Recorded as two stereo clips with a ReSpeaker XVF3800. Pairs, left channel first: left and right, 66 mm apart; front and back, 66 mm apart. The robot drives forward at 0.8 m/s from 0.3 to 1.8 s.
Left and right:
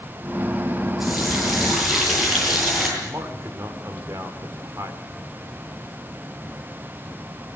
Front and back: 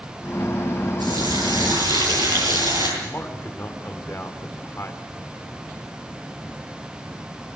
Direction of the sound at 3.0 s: 50° right.